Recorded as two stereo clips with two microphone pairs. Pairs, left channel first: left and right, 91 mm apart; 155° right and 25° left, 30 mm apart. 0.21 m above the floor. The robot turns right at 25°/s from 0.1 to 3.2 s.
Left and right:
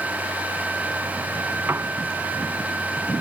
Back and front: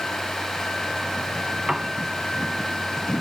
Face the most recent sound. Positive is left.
turn(degrees=0)